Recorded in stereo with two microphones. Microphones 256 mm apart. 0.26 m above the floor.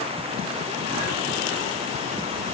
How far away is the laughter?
No laughter in this recording.